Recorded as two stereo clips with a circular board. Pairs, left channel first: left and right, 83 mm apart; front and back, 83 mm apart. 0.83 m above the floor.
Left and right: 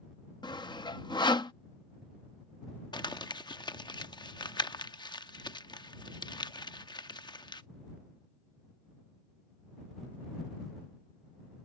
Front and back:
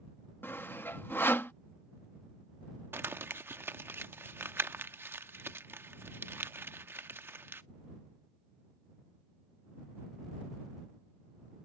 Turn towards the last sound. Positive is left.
turn(degrees=115)